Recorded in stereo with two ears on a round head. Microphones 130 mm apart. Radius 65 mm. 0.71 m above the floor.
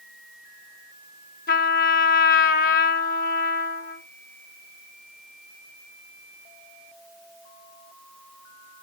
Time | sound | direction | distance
1.5 | a trumpet | 65° left (ahead or behind) | 0.8 m